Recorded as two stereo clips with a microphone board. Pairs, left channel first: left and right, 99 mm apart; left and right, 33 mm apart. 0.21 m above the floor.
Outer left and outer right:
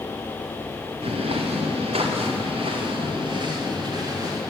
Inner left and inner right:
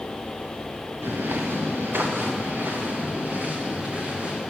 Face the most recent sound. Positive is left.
turn(degrees=-40)  # may be behind; listen again after turning